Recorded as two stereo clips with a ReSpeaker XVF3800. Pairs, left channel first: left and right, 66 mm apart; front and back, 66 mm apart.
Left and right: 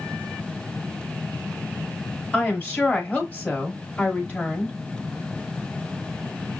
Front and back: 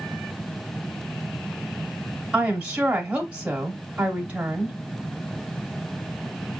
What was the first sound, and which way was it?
A woman speaking, 125° left.